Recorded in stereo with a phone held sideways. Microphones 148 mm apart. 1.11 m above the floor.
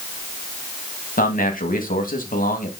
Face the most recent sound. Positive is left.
turn(degrees=70)  # may be behind; listen again after turning